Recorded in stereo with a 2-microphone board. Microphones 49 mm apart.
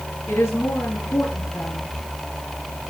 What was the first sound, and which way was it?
A woman speaking, 75° left (ahead or behind).